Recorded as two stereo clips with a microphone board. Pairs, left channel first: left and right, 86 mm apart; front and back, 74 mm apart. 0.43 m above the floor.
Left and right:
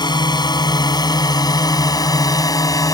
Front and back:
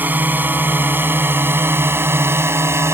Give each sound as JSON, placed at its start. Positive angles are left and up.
{"t": 0.0, "sound": "a drone", "azimuth_deg": 115}